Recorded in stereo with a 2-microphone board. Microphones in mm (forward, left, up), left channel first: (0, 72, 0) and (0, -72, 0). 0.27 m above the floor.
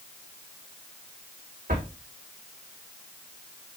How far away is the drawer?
About 6.5 m.